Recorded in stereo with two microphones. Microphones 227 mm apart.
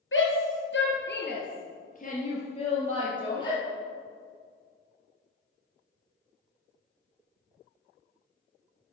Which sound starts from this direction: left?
A shout, at 0.1 s.